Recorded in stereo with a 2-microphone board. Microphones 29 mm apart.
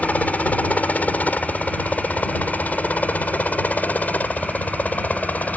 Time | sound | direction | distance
0.0 | a helicopter | 55° left (ahead or behind) | ?